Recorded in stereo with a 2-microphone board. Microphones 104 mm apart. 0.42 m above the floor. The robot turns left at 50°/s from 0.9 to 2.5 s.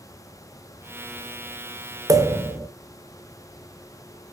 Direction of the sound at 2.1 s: 35° right (ahead or behind).